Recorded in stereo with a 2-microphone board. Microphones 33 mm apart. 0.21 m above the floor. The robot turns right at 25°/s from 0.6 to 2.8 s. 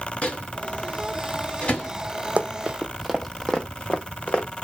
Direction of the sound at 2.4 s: 50° right (ahead or behind).